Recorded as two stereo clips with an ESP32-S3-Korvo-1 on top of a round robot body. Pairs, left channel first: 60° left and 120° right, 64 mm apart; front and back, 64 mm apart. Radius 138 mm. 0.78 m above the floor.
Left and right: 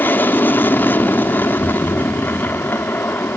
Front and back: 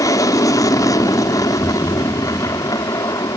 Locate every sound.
0.0 s an aircraft: 5° left
1.6 s a thud: 65° left